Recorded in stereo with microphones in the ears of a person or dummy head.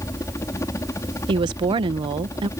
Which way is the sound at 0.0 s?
15° left (ahead or behind).